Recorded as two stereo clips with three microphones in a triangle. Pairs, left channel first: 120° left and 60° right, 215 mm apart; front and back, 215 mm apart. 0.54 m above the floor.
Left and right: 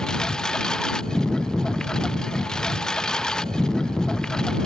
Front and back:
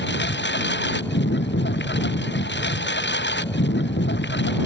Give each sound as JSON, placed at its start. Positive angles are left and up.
{"t": 0.0, "sound": "a lawn mower", "azimuth_deg": 35}